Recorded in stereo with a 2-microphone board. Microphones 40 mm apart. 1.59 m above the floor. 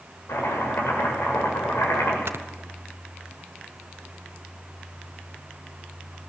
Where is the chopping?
85° left, 7.5 m.